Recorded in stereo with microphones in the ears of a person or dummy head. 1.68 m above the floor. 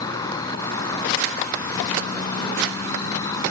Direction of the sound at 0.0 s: 20° left (ahead or behind).